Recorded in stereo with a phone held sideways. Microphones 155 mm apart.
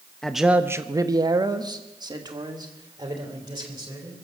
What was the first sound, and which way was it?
A man speaking, 5° left (ahead or behind).